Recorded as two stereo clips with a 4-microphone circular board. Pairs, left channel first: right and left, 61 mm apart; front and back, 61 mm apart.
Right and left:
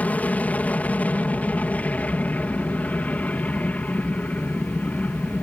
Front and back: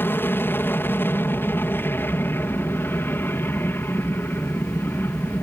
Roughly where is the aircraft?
Ahead right.